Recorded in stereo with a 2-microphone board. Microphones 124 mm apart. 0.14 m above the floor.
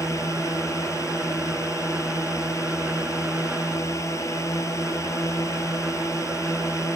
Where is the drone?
25° left (ahead or behind).